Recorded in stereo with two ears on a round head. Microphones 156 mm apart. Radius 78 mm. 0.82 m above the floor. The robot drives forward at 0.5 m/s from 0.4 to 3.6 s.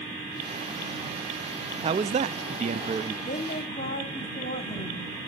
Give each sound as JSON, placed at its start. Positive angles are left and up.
{"t": 1.8, "sound": "a man speaking", "side_deg": -30, "distance_m": 0.6}
{"t": 3.3, "sound": "a woman speaking", "side_deg": 35, "distance_m": 2.0}